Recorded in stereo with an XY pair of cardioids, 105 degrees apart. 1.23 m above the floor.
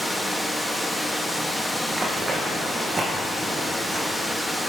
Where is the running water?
5° right, 1.4 m.